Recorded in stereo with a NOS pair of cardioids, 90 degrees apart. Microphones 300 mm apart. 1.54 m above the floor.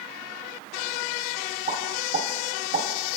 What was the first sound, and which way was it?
A pop, 45° right.